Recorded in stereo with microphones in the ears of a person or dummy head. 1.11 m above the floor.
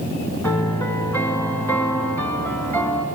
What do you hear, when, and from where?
0.4 s a piano: 10° left (ahead or behind), 1.9 m